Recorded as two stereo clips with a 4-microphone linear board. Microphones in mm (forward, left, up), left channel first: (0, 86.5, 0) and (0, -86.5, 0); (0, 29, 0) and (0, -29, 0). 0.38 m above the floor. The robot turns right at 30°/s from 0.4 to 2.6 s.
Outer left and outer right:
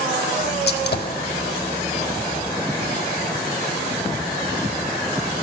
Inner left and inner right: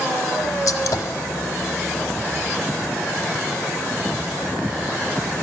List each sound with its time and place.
0.7 s a gunshot: 75° left (ahead or behind), 0.6 m; by 1.2 s 60° left (ahead or behind), 0.6 m